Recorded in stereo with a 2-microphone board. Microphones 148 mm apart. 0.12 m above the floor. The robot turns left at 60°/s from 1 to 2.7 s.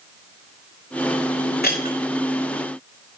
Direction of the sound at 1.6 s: 85° left.